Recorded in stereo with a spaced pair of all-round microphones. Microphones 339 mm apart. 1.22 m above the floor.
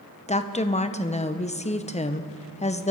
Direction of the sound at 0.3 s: 20° left (ahead or behind).